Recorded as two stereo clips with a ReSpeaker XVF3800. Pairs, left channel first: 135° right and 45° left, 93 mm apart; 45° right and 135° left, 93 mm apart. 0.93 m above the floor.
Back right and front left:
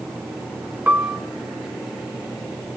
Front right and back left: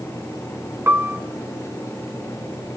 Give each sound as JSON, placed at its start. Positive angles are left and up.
{"t": 0.9, "sound": "a piano", "azimuth_deg": 95, "distance_m": 0.7}